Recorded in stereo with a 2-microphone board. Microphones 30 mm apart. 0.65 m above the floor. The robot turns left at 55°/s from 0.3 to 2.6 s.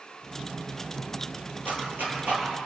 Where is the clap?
70° right (ahead or behind), 10 m; by 2.5 s 65° right (ahead or behind), 10 m.